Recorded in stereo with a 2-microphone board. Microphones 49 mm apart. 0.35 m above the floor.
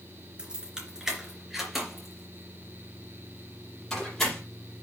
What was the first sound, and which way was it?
Keys jangling, 20° right (ahead or behind).